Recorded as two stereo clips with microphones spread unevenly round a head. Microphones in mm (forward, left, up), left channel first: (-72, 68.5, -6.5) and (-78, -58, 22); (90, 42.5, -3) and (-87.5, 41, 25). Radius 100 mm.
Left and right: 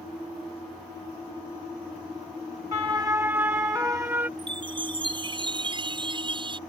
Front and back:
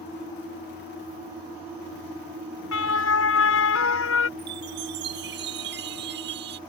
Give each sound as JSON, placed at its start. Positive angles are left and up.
{"t": 2.7, "sound": "a siren", "azimuth_deg": -15}
{"t": 4.4, "sound": "a chime", "azimuth_deg": -140}